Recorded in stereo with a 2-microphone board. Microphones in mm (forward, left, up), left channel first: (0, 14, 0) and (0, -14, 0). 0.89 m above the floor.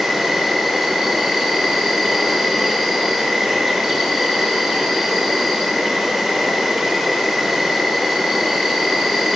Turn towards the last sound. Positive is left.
turn(degrees=-10)  # may be behind; listen again after turning